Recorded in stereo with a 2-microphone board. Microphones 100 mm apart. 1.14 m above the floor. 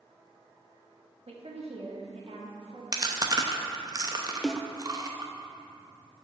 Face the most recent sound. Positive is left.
turn(degrees=0)  # may be behind; listen again after turning